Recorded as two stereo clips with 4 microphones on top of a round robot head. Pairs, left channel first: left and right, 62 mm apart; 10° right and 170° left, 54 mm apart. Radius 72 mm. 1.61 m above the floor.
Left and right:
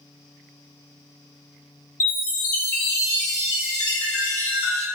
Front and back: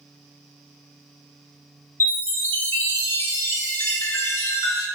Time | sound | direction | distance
2.0 | a chime | 35° left | 0.8 m